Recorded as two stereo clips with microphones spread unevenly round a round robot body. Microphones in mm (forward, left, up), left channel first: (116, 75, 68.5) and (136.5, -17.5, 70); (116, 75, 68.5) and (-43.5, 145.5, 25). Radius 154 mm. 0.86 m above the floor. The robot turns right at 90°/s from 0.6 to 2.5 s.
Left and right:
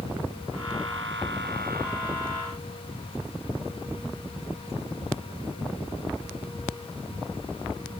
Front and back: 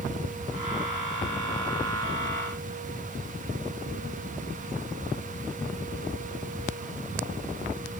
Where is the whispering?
No whispering in this recording.